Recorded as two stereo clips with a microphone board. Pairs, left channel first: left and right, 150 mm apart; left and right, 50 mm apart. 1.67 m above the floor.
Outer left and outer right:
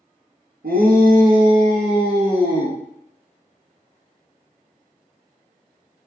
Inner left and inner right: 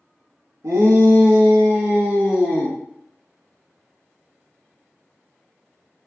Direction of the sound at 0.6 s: 80° right.